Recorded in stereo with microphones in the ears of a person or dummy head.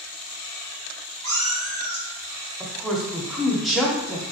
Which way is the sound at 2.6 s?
Centre (ahead or behind).